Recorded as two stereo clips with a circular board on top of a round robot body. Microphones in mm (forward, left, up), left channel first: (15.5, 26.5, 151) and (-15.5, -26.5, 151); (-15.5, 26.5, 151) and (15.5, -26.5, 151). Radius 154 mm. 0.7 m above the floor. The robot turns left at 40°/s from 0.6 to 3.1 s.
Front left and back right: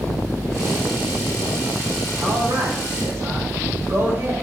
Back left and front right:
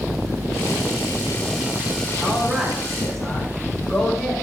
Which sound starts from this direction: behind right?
A man speaking, at 2.2 s.